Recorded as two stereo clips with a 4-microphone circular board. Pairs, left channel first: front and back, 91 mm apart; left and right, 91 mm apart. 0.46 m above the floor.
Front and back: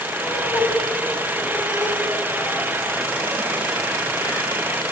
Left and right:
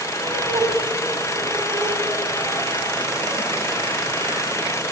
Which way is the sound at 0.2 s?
65° right.